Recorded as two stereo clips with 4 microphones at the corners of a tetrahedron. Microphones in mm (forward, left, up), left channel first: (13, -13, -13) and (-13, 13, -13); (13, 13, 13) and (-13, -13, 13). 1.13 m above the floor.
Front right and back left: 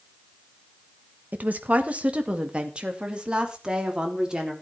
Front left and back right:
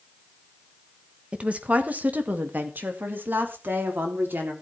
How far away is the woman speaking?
About 1.2 m.